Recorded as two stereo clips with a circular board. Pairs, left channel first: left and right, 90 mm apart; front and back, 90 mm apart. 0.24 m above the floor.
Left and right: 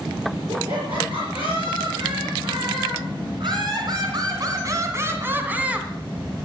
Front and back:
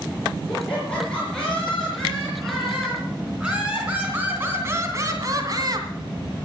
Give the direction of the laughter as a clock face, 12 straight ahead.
3 o'clock.